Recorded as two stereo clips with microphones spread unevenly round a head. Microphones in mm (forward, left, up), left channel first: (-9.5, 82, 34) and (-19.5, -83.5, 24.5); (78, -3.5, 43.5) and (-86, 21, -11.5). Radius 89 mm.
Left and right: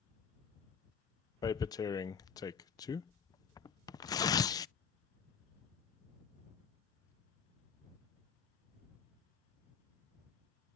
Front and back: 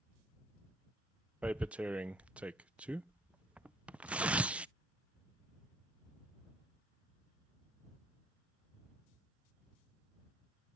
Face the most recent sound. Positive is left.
turn(degrees=140)